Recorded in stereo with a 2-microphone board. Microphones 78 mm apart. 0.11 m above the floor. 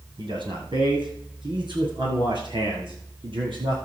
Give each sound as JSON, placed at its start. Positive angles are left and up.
{"t": 0.2, "sound": "a man speaking", "side_deg": -70, "distance_m": 4.0}